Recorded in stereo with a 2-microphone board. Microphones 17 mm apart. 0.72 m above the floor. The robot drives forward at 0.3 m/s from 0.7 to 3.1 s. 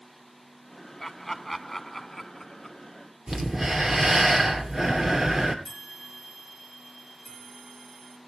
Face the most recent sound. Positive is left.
turn(degrees=40)  # may be behind; listen again after turning